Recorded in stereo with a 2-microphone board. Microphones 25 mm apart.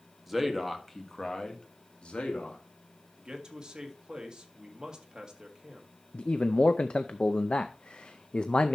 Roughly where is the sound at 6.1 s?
Left.